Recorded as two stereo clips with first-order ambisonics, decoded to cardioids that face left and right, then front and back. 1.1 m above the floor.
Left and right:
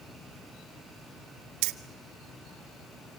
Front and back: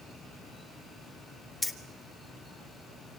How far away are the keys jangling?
About 0.8 m.